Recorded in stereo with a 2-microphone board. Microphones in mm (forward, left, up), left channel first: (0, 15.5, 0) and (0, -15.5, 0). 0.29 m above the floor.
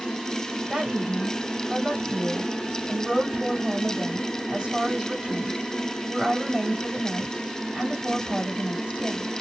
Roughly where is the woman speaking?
Right.